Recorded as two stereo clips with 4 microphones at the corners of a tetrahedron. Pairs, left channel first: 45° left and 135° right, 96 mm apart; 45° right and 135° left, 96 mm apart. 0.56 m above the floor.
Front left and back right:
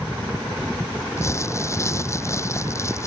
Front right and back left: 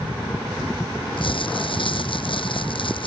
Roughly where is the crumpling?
Ahead.